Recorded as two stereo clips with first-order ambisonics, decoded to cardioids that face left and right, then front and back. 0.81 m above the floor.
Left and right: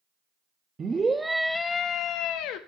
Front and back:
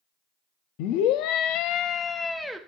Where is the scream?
20° right, 1.2 m; by 2.6 s 90° left, 0.9 m.